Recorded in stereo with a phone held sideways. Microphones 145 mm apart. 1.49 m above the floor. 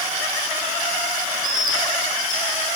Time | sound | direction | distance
1.4 | a bird | 75° left (ahead or behind) | 7 m